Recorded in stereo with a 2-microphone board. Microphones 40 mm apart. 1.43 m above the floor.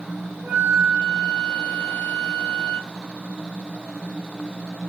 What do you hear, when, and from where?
0.4 s a flute: 40° right (ahead or behind), 1.8 m